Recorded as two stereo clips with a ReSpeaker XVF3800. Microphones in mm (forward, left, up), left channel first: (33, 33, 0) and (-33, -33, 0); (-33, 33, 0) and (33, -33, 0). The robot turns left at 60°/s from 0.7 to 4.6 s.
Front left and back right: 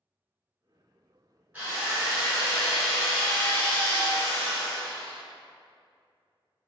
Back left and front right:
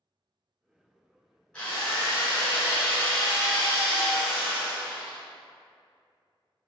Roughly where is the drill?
Behind.